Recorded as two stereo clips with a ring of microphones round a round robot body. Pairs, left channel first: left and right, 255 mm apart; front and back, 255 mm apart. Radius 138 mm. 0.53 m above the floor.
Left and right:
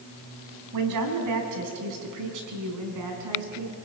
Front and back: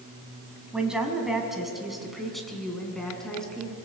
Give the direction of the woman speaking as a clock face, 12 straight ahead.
3 o'clock.